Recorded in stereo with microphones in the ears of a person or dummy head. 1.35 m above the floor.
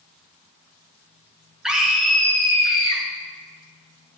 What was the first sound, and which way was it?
A scream, 5° right (ahead or behind).